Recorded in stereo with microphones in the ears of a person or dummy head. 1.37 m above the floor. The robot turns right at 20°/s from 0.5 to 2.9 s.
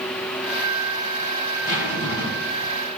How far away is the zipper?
About 2 m.